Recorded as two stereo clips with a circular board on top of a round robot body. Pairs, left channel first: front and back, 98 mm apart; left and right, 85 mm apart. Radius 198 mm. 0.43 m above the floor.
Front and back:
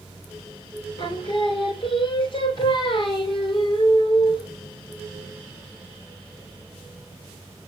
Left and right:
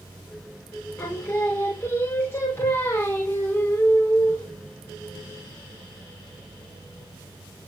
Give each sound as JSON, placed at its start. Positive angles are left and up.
{"t": 1.0, "sound": "singing", "azimuth_deg": 30, "distance_m": 3.0}